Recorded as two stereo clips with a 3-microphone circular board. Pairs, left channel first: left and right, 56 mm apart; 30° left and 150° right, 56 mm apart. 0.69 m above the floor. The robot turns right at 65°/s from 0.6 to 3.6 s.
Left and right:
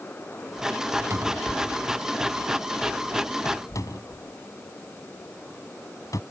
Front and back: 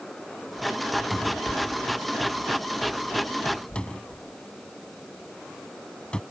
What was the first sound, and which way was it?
A cupboard door, 60° right.